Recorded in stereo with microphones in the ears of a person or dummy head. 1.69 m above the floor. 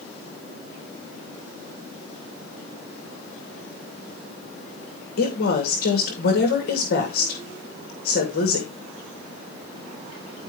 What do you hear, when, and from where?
5.2 s a woman speaking: 60° left (ahead or behind), 2.5 m